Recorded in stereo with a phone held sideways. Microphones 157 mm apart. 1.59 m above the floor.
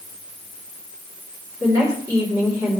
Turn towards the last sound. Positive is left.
turn(degrees=-20)  # may be behind; listen again after turning